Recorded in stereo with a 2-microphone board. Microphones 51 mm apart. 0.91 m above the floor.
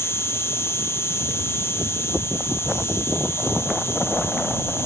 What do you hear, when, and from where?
0.0 s an insect: 65° left (ahead or behind)